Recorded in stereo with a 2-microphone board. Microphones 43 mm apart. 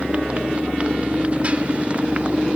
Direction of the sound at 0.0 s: 30° right (ahead or behind).